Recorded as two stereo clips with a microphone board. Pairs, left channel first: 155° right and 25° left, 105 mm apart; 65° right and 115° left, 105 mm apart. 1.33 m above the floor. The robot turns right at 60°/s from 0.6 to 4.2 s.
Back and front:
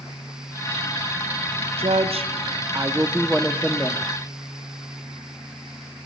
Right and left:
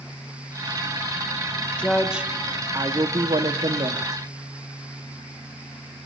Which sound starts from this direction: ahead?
A woman speaking, at 1.8 s.